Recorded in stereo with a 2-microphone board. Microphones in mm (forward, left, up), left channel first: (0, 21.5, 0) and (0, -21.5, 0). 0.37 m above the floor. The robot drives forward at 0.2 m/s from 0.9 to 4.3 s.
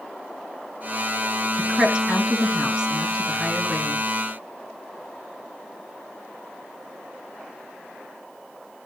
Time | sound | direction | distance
1.6 | a woman speaking | 15° right (ahead or behind) | 3 m